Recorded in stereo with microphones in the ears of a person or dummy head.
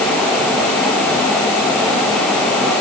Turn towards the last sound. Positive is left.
No sound to turn to.